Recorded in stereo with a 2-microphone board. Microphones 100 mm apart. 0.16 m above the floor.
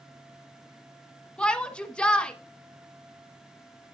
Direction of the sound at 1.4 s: 10° left (ahead or behind).